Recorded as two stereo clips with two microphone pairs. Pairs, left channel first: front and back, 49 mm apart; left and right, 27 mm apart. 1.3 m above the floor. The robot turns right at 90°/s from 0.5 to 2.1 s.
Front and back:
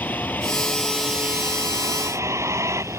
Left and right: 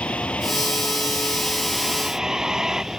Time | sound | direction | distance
0.0 | a vehicle | 55° left | ?